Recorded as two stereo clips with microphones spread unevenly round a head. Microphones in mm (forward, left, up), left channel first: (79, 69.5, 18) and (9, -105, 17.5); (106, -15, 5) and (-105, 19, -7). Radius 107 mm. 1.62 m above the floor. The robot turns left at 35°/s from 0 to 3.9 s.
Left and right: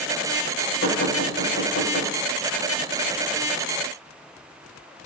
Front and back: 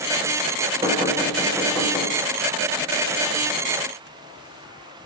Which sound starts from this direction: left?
Knocking, at 0.8 s.